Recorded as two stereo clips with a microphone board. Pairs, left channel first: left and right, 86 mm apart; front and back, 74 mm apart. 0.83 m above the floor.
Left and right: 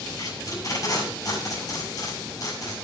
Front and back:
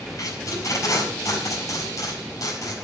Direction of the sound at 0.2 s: 45° left.